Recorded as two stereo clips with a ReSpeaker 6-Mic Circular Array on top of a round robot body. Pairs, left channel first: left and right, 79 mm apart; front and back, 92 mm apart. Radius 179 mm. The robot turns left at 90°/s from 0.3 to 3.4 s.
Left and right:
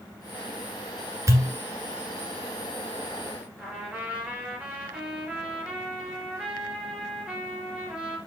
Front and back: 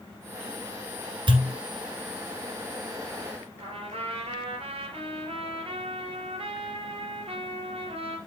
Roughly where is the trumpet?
Behind.